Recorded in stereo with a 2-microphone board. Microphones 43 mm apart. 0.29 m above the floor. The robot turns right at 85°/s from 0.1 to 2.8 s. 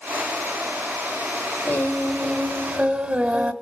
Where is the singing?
120° left, 1.7 m; by 3.5 s 145° right, 1.7 m.